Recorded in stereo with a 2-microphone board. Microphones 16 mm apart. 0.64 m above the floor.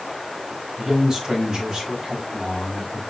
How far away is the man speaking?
About 4.5 m.